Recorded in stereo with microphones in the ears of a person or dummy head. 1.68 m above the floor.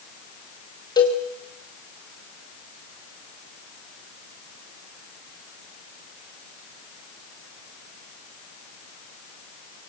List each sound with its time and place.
1.0 s a cowbell: 30° left (ahead or behind), 3.5 m